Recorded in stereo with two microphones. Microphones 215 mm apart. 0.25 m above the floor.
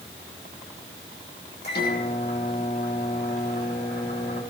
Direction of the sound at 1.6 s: 50° left (ahead or behind).